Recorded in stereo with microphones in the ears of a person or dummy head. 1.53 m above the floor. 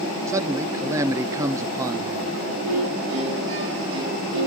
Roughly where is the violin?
Right.